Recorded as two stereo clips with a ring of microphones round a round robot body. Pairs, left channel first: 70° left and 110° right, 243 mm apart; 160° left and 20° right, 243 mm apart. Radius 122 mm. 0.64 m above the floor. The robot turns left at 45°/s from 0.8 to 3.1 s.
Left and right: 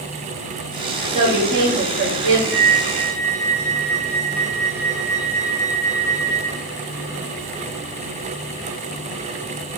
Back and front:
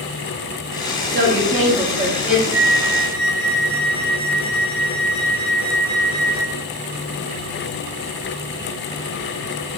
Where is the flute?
105° left, 2 m; by 6.6 s 80° left, 2 m.